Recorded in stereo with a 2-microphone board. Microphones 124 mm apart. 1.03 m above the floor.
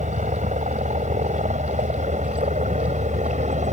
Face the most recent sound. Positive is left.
turn(degrees=-70)  # may be behind; listen again after turning